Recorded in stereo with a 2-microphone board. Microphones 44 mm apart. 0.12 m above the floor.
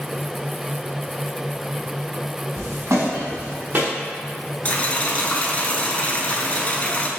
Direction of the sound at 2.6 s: 70° right (ahead or behind).